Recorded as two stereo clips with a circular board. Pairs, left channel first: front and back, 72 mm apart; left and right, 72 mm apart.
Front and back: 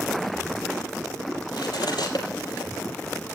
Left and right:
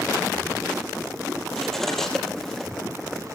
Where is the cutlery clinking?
5° left, 4.5 m.